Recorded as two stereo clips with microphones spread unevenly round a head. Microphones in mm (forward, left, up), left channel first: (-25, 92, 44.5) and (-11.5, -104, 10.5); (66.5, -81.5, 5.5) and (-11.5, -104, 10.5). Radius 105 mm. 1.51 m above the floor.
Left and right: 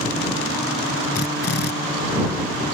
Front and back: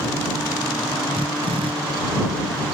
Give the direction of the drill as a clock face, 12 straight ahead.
8 o'clock.